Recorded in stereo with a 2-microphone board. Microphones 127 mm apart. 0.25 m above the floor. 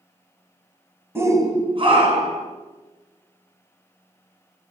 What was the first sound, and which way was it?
A shout, 15° right (ahead or behind).